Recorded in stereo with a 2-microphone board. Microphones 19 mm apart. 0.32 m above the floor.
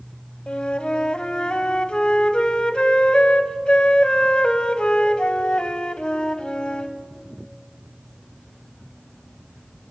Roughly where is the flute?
Left.